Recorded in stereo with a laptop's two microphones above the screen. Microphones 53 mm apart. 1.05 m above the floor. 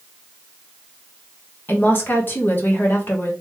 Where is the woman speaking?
40° left (ahead or behind), 1.1 m.